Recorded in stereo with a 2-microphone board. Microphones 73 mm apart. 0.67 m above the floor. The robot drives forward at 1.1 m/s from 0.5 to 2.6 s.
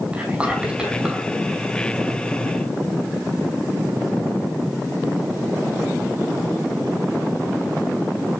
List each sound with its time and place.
0.1 s whispering: 15° right (ahead or behind), 5.5 m